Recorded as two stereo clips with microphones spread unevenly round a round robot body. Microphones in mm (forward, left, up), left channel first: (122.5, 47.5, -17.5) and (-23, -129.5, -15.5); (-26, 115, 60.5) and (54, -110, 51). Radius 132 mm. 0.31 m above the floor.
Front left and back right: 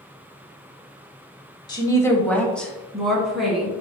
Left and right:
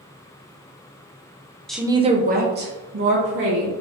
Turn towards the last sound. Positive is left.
turn(degrees=-40)